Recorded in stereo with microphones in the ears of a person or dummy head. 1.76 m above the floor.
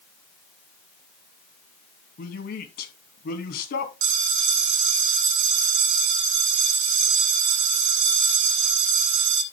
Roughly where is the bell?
Right.